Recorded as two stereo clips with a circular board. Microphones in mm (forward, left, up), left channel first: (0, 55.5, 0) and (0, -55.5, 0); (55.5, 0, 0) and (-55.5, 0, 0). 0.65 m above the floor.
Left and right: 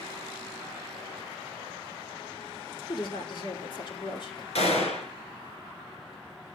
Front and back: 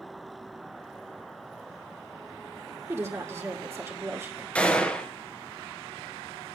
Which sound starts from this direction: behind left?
A woman speaking, at 2.9 s.